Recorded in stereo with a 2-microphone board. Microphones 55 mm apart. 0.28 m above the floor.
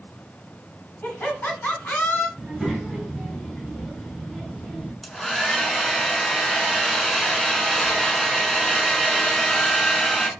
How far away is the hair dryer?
About 0.6 m.